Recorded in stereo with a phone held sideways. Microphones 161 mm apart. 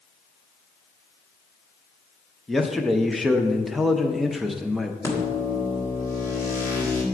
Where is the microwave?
20° left (ahead or behind), 1.7 m.